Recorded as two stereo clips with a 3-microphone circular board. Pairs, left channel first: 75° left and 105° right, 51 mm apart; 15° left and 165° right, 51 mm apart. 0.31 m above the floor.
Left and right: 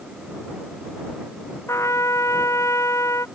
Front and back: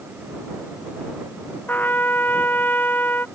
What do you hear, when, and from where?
1.7 s a trumpet: 65° left